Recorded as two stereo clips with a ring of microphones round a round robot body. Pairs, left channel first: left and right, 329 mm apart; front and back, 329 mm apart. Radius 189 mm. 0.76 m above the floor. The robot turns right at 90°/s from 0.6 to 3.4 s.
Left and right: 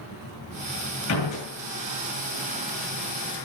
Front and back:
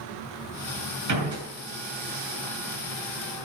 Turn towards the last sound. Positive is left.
turn(degrees=-15)